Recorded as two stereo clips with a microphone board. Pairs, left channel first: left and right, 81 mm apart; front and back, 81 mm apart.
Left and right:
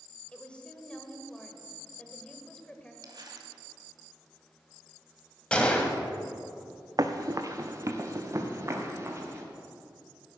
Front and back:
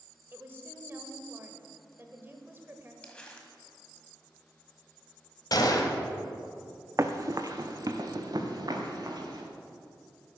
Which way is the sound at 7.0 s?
130° right.